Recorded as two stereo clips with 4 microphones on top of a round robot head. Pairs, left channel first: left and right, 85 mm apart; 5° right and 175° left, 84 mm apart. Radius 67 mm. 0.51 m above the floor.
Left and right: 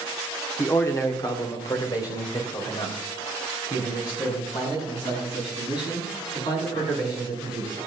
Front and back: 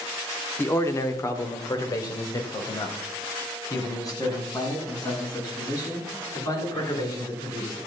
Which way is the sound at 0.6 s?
40° left.